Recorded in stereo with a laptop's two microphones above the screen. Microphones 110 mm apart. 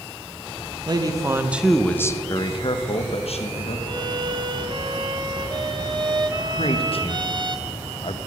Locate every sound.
0.9 s a man speaking: 40° right (ahead or behind), 0.7 m; by 3.8 s 70° left (ahead or behind), 1.2 m
3.9 s a violin: 40° right (ahead or behind), 0.8 m
6.6 s a man speaking: 60° left (ahead or behind), 0.7 m